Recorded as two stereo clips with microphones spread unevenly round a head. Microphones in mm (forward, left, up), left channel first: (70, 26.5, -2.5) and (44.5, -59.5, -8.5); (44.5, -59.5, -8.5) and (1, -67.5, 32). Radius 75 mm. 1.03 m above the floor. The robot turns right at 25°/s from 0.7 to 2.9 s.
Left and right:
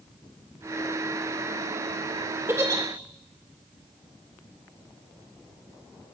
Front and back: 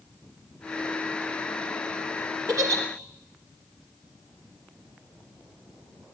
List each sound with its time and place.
2.5 s a giggle: straight behind, 3 m; by 2.8 s 175° right, 3 m